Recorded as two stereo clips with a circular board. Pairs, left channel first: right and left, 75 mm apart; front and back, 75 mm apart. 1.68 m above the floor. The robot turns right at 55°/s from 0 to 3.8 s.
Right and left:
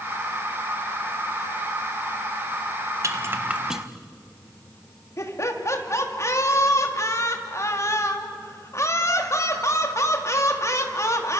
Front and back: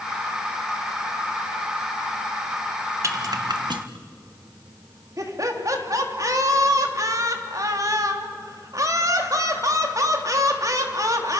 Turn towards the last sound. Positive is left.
turn(degrees=-140)